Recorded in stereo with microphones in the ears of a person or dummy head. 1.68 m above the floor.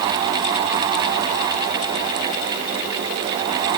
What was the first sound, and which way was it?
Only background noise.